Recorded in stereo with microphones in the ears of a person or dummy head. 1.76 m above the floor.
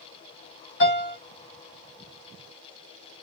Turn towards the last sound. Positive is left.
turn(degrees=50)  # may be behind; listen again after turning